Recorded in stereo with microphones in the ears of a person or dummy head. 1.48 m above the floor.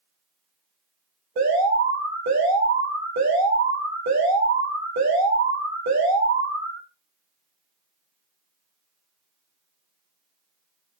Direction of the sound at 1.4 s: 55° right (ahead or behind).